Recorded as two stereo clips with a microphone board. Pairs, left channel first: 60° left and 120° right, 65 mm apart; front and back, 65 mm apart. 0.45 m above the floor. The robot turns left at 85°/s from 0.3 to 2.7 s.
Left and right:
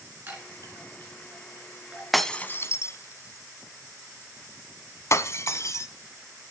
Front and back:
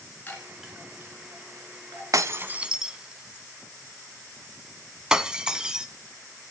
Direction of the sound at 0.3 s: 65° right.